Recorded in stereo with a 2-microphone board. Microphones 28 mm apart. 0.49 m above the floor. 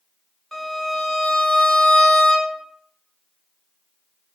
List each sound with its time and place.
0.5 s a violin: 5° left (ahead or behind), 1.0 m